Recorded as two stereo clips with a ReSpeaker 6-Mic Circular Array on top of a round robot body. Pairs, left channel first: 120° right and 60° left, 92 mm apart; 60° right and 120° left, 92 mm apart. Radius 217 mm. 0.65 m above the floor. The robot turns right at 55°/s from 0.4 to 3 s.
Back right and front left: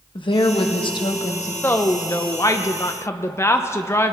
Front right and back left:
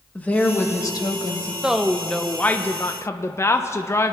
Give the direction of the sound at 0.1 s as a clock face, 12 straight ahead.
4 o'clock.